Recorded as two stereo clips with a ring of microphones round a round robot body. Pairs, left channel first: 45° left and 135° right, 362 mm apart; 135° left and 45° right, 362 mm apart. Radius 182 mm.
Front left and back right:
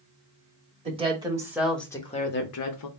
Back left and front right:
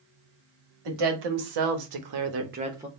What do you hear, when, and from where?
0.8 s a woman speaking: 60° right, 1.8 m; by 2.9 s 40° left, 0.9 m